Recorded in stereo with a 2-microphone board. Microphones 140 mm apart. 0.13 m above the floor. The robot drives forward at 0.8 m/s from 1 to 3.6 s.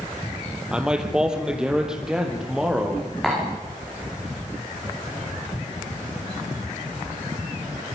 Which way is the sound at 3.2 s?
5° left (ahead or behind).